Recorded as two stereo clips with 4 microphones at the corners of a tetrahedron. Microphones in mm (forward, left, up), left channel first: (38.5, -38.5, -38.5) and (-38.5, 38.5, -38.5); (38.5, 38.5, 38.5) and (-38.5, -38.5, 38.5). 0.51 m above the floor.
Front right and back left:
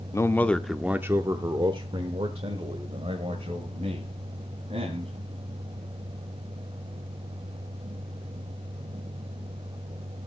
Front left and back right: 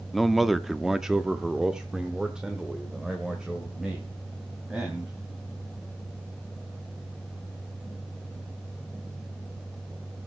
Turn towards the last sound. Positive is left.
turn(degrees=140)